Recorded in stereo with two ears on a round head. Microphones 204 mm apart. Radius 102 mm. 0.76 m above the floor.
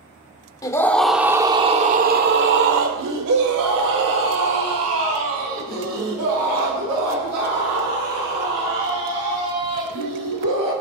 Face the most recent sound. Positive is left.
turn(degrees=-85)